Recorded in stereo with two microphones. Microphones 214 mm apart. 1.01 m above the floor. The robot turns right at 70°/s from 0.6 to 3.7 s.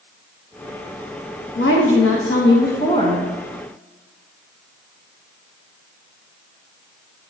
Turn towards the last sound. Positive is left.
turn(degrees=-155)